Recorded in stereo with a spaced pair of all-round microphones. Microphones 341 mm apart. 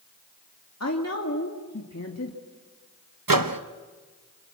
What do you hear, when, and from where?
0.8 s a woman speaking: 50° left (ahead or behind), 2 m
3.3 s a microwave: 75° right (ahead or behind), 1.0 m